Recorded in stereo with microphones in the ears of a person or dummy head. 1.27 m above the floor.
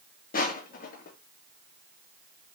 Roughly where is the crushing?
Left.